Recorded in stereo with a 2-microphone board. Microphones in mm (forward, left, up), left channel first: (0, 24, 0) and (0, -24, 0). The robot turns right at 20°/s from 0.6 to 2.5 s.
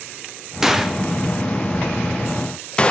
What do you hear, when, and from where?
0.6 s a gunshot: 10° right (ahead or behind), 0.5 m; by 2.9 s 20° left (ahead or behind), 0.5 m